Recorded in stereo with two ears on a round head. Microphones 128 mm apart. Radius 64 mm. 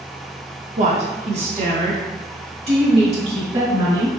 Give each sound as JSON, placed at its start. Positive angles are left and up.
{"t": 0.8, "sound": "a woman speaking", "side_deg": -55, "distance_m": 0.9}